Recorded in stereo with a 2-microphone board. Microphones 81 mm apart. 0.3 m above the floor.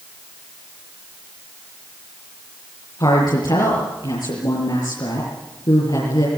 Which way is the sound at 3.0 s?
60° left (ahead or behind).